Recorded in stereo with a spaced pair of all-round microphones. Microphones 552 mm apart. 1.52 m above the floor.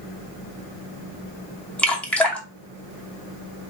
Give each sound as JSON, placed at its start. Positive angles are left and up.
{"t": 1.8, "sound": "dripping", "side_deg": 0, "distance_m": 0.9}